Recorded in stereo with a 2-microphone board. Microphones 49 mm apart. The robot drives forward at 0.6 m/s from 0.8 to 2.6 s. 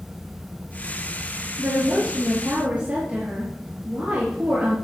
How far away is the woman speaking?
About 2.5 m.